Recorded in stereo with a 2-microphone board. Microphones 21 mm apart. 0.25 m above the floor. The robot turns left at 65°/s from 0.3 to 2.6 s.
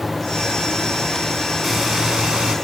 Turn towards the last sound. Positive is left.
turn(degrees=-85)